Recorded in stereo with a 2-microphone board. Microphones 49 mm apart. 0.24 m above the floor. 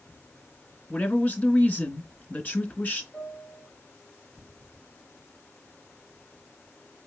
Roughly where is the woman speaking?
Left.